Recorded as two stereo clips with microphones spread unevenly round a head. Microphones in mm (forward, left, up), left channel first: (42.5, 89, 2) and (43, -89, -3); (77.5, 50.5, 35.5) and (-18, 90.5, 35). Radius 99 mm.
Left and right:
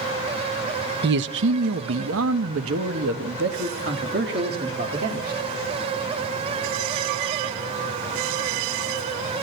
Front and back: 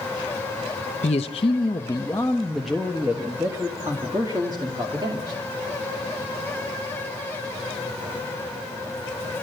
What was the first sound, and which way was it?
A man speaking, 65° right.